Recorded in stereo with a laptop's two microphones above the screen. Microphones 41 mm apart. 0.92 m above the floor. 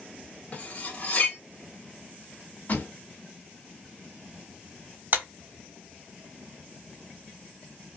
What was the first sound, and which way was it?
Cutlery clinking, 35° left (ahead or behind).